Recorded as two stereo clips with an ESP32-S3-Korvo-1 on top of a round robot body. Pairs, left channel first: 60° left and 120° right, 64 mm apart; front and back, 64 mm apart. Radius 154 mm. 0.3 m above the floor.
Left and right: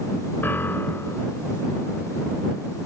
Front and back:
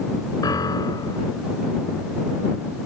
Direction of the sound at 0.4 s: Straight ahead.